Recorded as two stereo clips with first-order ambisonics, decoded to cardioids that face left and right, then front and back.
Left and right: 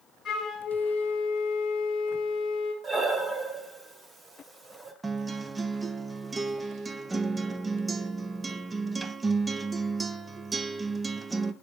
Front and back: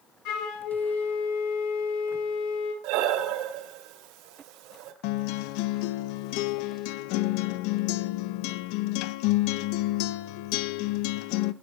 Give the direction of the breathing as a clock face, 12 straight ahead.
5 o'clock.